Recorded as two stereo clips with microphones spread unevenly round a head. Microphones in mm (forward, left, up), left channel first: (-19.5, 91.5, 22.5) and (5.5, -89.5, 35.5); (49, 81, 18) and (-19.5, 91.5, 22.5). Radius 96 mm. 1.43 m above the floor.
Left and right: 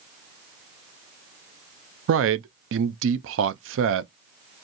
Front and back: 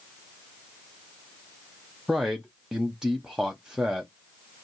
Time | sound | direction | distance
2.1 | a man speaking | 100° right | 0.5 m